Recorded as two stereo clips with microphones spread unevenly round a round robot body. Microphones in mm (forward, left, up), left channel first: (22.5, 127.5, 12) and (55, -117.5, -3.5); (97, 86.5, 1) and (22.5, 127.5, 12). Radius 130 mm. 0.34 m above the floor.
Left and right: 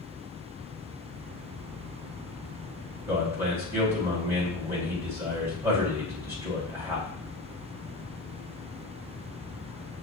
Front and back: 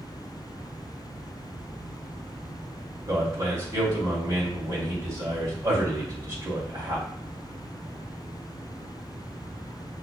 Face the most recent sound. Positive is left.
turn(degrees=-160)